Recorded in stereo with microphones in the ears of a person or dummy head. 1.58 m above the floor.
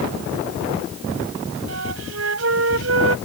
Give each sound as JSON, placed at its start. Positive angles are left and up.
{"t": 1.7, "sound": "a flute", "side_deg": -75}